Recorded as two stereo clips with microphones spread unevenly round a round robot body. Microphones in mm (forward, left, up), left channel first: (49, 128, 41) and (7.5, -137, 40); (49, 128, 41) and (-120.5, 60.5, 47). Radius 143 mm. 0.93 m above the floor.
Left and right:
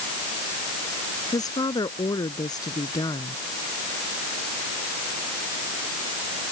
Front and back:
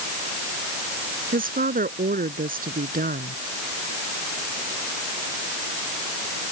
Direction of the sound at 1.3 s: 160° left.